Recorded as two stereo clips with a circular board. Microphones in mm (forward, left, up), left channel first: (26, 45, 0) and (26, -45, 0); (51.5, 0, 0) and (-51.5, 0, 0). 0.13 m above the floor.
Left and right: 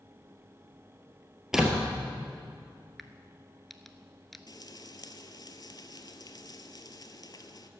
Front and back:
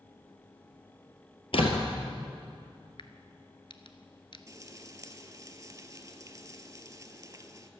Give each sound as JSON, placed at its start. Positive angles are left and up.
{"t": 1.5, "sound": "a door slam", "azimuth_deg": -5, "distance_m": 1.7}
{"t": 3.0, "sound": "a crack", "azimuth_deg": 0, "distance_m": 0.8}
{"t": 4.5, "sound": "frying", "azimuth_deg": 125, "distance_m": 0.8}